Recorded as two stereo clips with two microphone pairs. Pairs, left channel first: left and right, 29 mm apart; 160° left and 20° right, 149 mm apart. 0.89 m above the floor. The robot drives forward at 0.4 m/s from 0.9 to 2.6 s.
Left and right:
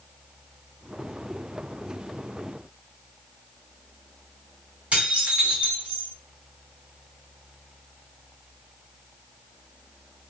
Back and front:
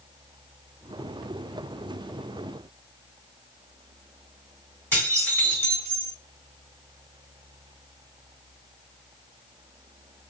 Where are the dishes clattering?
125° right, 3 m.